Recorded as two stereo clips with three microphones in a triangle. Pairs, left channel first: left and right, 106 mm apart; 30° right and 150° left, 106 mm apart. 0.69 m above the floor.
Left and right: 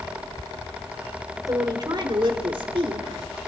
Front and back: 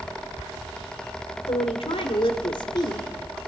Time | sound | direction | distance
1.5 | a woman speaking | 40° right | 3 m